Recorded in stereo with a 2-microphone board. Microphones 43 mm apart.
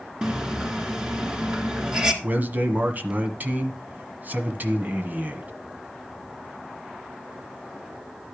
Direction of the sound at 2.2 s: 40° right (ahead or behind).